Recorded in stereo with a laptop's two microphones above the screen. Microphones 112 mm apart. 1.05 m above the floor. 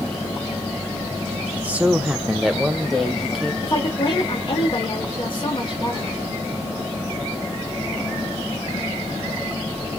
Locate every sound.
1.5 s a man speaking: 10° right (ahead or behind), 0.6 m; by 3.5 s 5° left (ahead or behind), 1.5 m
3.6 s a woman speaking: 50° left (ahead or behind), 1.8 m